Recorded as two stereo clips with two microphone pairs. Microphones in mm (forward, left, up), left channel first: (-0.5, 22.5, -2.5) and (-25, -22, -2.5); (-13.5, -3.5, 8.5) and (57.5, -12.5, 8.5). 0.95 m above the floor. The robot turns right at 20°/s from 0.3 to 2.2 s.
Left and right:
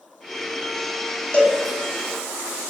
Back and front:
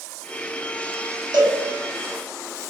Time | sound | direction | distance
1.3 | a cowbell | 5° right | 0.9 m